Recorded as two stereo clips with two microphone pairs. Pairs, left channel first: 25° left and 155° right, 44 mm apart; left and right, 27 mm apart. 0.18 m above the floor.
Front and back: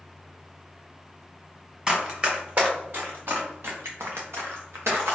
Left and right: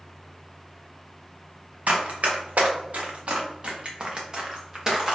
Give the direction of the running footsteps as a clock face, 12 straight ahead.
3 o'clock.